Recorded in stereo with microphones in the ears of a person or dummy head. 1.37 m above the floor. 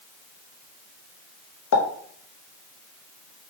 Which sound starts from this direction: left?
A pop, at 1.7 s.